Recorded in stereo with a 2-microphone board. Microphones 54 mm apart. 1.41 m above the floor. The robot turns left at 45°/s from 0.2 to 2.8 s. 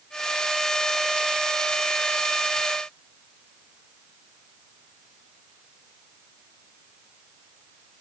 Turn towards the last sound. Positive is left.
No sound to turn to.